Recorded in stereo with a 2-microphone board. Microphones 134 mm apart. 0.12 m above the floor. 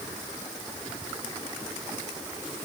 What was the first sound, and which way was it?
Only background noise.